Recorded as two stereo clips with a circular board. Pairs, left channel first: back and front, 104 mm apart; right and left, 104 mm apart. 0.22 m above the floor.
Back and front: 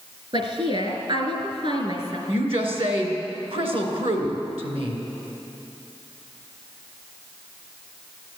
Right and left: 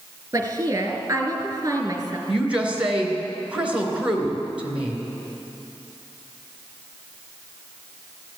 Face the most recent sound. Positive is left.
turn(degrees=10)